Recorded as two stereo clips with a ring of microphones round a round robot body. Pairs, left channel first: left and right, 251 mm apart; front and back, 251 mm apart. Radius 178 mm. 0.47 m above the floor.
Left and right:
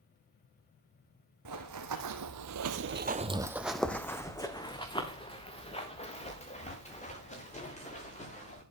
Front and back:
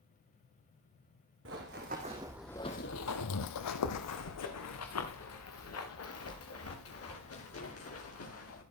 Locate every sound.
1.4 s running footsteps: 120° right, 2.5 m; by 8.6 s 30° left, 8.5 m